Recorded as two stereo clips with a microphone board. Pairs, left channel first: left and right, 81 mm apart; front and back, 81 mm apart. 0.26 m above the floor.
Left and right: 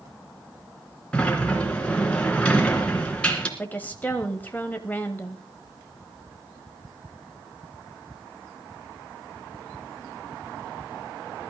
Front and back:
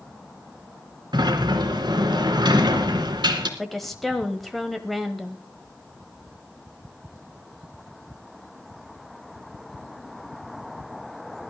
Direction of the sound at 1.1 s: 165° left.